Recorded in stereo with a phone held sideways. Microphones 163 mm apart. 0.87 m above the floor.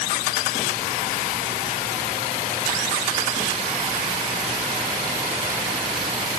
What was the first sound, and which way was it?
Only background noise.